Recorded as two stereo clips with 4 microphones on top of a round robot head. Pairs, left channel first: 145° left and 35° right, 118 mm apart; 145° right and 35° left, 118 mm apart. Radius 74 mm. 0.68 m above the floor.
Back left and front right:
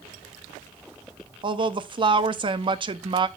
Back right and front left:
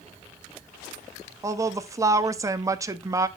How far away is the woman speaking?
About 0.9 m.